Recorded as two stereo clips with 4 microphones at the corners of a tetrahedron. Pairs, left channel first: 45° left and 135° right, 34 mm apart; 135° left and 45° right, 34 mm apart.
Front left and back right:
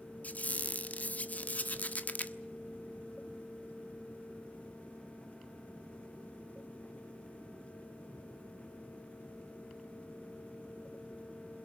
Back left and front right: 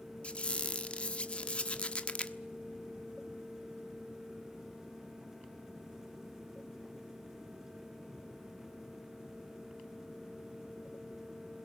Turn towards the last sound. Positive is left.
turn(degrees=80)